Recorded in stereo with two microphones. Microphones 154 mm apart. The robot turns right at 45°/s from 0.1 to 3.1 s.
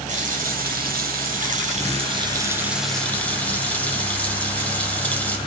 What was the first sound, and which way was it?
A running tap, 125° right.